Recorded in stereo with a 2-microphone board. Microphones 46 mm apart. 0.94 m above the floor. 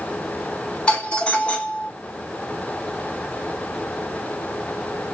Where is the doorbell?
25° left (ahead or behind), 1.3 m.